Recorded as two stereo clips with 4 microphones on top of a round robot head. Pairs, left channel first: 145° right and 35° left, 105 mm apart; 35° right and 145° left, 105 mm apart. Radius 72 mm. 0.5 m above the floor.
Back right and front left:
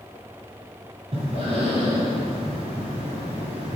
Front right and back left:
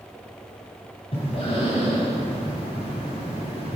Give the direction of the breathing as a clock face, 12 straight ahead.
12 o'clock.